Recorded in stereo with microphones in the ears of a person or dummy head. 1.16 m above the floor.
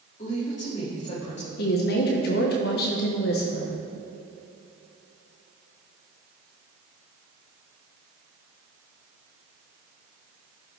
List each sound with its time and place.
0.2 s a woman speaking: 40° left (ahead or behind), 1.9 m
1.6 s a woman speaking: 45° left (ahead or behind), 1.0 m